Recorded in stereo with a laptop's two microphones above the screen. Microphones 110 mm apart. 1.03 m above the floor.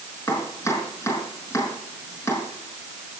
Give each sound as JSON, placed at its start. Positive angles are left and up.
{"t": 0.3, "sound": "chopping", "side_deg": 25, "distance_m": 5.0}